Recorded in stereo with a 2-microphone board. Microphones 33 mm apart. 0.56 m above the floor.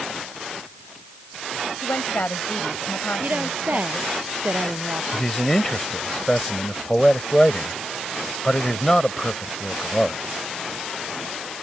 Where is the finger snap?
I don't hear a finger snap.